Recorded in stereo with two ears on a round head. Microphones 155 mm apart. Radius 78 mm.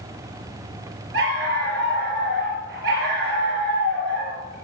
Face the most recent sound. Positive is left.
turn(degrees=-70)  # may be behind; listen again after turning